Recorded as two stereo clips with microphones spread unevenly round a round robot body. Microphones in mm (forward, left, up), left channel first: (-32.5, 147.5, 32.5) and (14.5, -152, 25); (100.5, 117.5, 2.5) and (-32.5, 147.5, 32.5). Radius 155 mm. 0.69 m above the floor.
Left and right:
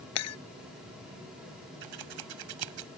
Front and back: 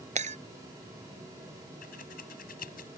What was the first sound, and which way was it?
Breaking glass, 140° left.